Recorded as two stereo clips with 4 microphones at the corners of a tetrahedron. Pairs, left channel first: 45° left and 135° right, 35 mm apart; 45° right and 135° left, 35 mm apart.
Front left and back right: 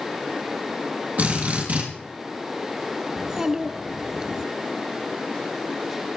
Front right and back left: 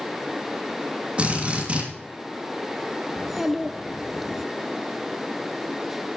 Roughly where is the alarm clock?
I don't hear an alarm clock.